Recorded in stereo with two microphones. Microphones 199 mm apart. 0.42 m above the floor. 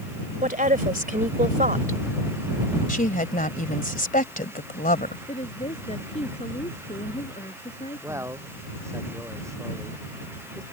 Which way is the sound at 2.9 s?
45° left (ahead or behind).